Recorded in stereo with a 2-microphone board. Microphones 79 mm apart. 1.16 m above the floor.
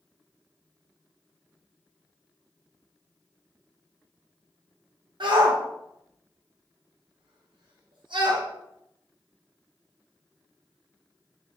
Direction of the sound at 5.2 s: 70° right (ahead or behind).